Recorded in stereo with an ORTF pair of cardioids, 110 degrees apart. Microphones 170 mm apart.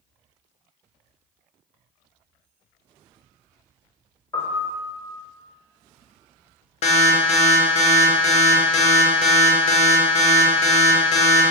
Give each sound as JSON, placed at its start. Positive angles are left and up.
{"t": 4.3, "sound": "a piano", "azimuth_deg": 20, "distance_m": 1.0}
{"t": 6.8, "sound": "an alarm", "azimuth_deg": 45, "distance_m": 0.7}